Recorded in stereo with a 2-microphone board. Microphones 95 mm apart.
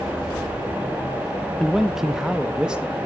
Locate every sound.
1.6 s a man speaking: centre (ahead or behind), 0.6 m; by 3.0 s 10° right (ahead or behind), 1.9 m